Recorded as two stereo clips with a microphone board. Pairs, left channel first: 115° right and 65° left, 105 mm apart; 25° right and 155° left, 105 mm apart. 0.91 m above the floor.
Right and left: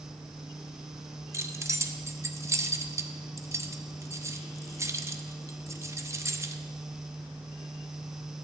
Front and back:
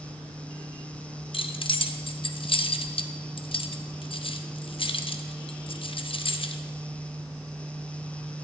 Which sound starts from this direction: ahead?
Keys jangling, at 1.3 s.